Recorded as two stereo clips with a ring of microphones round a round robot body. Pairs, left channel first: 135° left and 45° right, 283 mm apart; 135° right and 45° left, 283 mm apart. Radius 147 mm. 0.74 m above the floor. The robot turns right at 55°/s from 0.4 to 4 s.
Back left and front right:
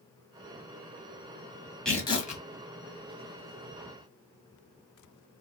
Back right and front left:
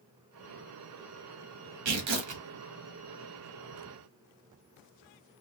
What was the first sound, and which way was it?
Tearing paper, 45° left.